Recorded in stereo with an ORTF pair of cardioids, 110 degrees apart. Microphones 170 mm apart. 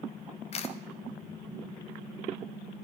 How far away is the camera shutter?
About 0.7 m.